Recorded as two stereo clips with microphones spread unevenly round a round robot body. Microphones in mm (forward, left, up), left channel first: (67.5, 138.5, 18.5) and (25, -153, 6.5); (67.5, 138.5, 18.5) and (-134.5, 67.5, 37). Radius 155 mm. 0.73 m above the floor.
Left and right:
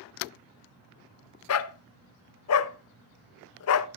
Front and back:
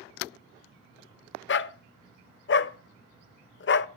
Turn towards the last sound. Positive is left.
turn(degrees=50)